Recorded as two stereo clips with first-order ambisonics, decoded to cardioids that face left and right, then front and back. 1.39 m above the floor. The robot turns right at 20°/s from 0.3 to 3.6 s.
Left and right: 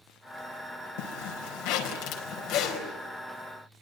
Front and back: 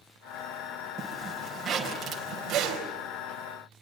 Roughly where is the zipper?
Left.